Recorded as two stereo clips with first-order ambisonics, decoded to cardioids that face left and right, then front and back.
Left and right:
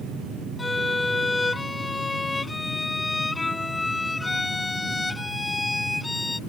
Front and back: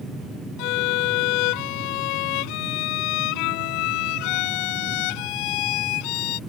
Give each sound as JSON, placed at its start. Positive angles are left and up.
{"t": 0.6, "sound": "a violin", "azimuth_deg": 10}